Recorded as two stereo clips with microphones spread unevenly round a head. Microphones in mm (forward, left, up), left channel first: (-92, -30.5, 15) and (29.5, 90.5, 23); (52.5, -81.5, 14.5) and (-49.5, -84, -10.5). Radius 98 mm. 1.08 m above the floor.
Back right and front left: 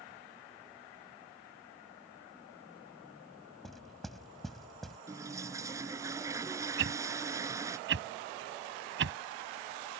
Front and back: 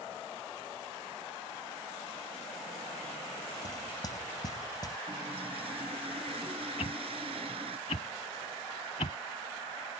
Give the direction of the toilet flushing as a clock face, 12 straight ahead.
8 o'clock.